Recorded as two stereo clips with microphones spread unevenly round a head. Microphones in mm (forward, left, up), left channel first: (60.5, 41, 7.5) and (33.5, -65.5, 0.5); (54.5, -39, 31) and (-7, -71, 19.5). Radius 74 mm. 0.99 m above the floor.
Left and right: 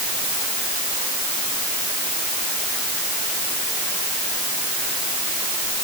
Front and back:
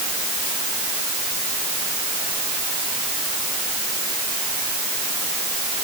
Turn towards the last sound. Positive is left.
No sound to turn to.